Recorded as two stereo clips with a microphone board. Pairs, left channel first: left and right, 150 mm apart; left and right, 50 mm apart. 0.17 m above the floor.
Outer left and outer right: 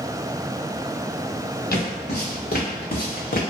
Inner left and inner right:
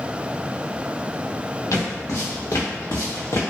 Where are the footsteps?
80° left, 1.5 m; by 3.4 s 65° left (ahead or behind), 0.7 m.